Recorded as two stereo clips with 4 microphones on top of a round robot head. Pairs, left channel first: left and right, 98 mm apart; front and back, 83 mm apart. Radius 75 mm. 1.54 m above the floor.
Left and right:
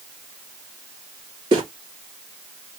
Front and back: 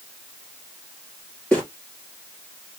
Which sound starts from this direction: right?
Footsteps, at 1.5 s.